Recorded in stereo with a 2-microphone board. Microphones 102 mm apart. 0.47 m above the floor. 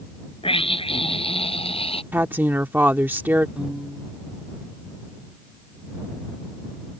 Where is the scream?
75° left (ahead or behind); by 2.0 s 85° left.